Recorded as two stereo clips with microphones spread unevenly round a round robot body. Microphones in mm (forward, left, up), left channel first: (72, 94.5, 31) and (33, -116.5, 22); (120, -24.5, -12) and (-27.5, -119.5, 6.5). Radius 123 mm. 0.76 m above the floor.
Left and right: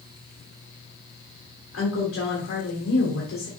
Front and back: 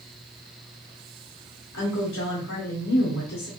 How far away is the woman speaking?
About 2.5 m.